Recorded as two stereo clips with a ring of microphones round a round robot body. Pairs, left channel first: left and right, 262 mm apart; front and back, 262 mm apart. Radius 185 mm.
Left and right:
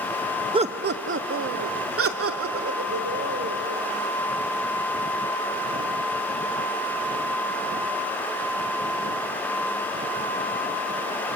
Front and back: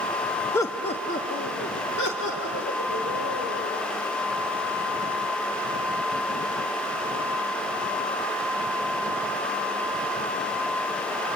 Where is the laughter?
65° right, 0.7 m; by 3.8 s 60° right, 4.5 m.